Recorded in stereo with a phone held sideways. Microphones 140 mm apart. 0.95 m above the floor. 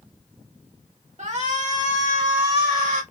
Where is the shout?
55° right (ahead or behind), 1.8 m; by 3.0 s 75° right (ahead or behind), 2.5 m.